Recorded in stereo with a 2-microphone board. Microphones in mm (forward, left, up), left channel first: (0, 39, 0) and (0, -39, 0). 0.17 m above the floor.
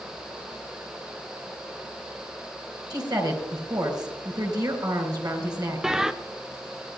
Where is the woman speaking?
55° right (ahead or behind), 4 m.